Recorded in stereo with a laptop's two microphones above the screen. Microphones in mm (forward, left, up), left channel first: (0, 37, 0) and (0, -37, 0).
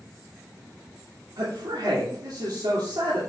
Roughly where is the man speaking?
Right.